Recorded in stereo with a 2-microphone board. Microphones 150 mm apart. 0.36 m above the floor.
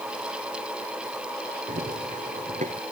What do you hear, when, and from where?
1.7 s running footsteps: 60° right (ahead or behind); by 2.8 s 50° right (ahead or behind)